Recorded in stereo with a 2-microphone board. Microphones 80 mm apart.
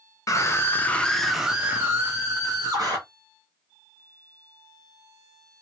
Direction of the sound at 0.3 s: 40° left (ahead or behind).